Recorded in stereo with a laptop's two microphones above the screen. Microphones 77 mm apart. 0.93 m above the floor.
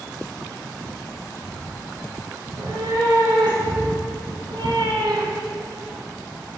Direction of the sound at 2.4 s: 80° right.